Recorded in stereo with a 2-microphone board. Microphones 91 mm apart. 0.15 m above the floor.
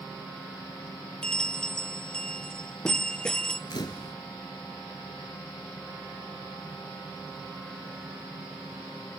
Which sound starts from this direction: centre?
A bell, at 1.2 s.